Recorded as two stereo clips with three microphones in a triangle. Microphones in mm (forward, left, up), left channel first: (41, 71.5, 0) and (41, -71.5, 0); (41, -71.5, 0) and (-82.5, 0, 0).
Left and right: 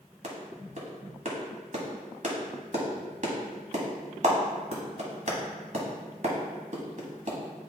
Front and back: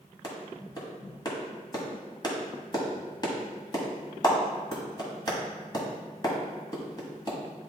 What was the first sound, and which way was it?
A clap, 85° right.